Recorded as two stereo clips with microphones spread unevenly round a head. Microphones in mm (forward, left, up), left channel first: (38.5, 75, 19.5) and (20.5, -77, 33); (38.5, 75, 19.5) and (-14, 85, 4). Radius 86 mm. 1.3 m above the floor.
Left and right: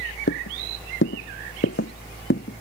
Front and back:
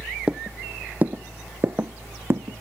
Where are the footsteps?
90° left; by 2.6 s 125° left.